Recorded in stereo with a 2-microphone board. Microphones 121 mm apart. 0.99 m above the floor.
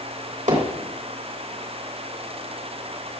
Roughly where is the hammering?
Right.